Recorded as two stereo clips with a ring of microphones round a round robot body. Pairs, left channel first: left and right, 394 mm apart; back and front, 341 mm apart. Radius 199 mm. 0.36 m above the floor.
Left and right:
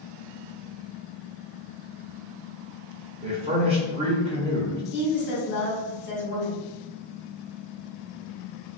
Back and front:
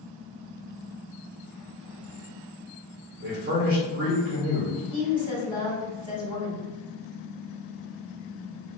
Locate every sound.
3.2 s a man speaking: 30° right, 1.0 m
4.9 s a woman speaking: 65° left, 1.4 m